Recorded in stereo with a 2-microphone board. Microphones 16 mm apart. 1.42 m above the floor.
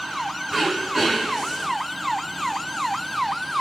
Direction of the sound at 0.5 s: 20° right (ahead or behind).